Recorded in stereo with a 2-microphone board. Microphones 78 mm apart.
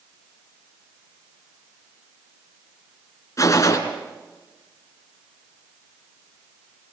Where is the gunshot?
45° left (ahead or behind), 3 m.